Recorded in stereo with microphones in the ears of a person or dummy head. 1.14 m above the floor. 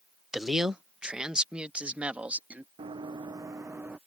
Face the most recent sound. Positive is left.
turn(degrees=-10)  # may be behind; listen again after turning